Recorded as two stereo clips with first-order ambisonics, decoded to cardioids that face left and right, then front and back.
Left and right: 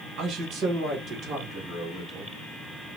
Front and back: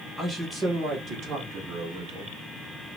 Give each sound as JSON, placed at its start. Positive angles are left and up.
{"t": 0.2, "sound": "a man speaking", "azimuth_deg": -90, "distance_m": 1.2}